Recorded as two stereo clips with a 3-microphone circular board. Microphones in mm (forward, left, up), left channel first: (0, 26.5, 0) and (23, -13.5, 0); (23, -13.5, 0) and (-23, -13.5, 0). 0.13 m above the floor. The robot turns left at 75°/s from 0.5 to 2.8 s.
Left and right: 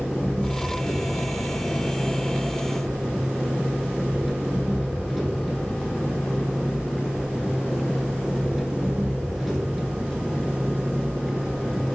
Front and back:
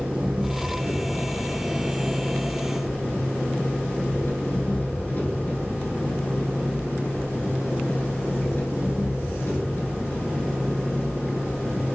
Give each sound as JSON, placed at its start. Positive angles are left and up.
{"t": 0.0, "sound": "an engine running", "azimuth_deg": -155, "distance_m": 0.8}